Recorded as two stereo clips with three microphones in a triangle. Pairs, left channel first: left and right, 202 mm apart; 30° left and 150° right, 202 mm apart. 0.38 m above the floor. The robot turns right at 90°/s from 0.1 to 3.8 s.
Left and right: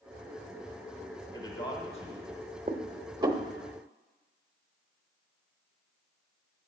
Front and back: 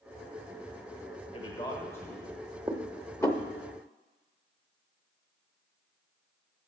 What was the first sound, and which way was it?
A man speaking, 35° left.